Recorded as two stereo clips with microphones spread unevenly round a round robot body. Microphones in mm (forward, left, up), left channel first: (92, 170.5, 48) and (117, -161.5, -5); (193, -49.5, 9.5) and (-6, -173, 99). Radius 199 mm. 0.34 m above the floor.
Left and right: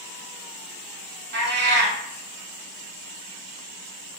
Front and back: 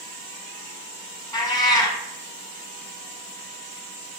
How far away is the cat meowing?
About 0.9 m.